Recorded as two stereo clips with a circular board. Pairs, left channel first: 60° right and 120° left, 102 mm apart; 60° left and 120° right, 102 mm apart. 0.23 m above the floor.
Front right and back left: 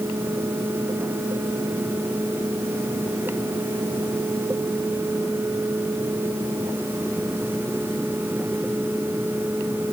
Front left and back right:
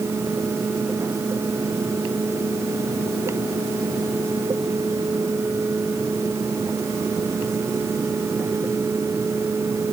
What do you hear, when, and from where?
Only background noise.